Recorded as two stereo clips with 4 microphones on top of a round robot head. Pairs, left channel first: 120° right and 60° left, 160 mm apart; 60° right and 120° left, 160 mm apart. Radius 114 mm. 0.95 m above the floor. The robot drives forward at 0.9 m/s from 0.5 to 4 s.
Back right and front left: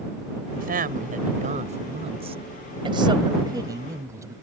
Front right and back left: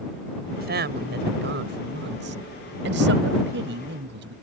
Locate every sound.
0.6 s a woman speaking: 95° left; by 4.3 s 130° left